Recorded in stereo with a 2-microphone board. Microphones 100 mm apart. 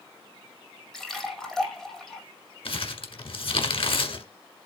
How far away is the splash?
About 2 m.